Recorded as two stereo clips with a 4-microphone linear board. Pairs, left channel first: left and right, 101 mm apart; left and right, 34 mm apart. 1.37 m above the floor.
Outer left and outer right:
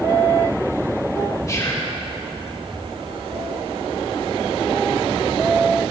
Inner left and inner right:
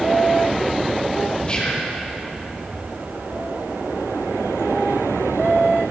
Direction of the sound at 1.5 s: 30° left (ahead or behind).